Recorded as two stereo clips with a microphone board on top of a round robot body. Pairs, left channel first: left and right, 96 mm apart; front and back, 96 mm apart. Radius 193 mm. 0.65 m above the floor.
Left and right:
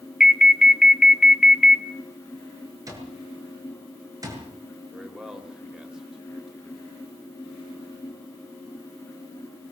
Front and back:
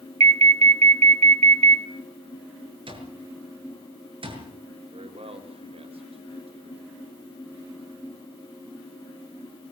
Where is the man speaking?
175° right, 4.5 m.